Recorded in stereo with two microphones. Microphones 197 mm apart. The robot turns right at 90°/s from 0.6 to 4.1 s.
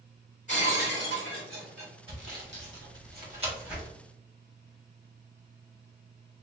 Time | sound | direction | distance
0.5 | breaking glass | 40° left | 1.8 m
2.1 | sawing | 25° right (ahead or behind) | 1.5 m